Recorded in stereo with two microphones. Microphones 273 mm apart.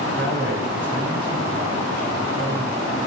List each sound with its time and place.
0.1 s a man speaking: 40° right (ahead or behind), 9.5 m